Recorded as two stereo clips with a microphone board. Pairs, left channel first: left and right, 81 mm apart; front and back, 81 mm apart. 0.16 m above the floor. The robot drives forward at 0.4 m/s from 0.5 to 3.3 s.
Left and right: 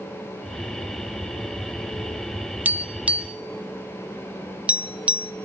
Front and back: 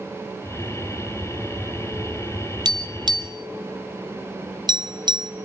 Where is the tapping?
155° right, 0.7 m; by 5.3 s 165° right, 1.0 m.